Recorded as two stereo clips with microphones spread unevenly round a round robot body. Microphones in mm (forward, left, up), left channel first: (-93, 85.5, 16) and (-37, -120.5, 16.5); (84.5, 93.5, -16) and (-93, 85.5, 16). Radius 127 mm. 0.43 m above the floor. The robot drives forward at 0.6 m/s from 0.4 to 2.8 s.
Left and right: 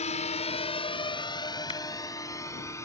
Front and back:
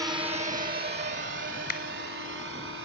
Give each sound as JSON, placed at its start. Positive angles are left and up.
{"t": 0.0, "sound": "a drone", "azimuth_deg": 110}
{"t": 1.7, "sound": "a clap", "azimuth_deg": 35}